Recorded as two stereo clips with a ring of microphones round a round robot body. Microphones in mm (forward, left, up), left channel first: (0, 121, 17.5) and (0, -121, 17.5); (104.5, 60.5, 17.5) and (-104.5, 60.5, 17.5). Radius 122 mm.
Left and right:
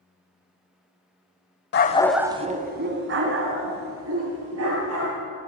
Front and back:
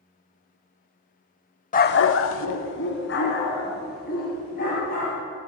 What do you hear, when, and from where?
1.7 s a dog barking: 50° left, 0.8 m; by 5.1 s 60° right, 4.5 m